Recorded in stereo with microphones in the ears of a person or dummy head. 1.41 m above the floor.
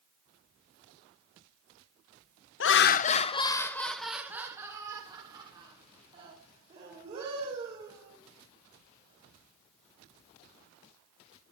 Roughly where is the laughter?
Left.